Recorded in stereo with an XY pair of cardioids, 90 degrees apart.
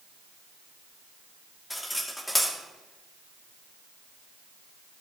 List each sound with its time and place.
1.7 s cutlery clinking: 15° left, 2.5 m